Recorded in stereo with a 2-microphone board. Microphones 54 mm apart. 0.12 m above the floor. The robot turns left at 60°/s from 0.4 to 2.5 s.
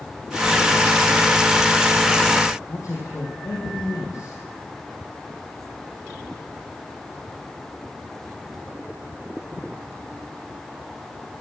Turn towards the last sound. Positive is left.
turn(degrees=70)  # may be behind; listen again after turning